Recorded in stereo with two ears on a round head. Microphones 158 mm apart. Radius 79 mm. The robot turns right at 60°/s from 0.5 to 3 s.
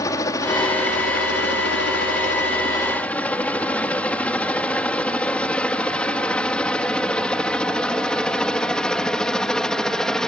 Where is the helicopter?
20° left (ahead or behind); by 10.3 s 5° left (ahead or behind).